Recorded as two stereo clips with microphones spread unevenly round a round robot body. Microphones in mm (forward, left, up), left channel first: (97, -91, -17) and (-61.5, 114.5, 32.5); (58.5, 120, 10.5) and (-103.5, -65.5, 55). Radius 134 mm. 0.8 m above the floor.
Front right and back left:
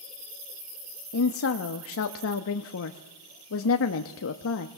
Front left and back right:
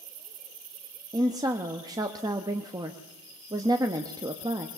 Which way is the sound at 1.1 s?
50° right.